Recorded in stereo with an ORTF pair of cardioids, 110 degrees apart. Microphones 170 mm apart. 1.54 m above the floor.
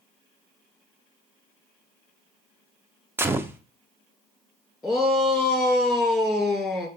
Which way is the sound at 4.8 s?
Straight ahead.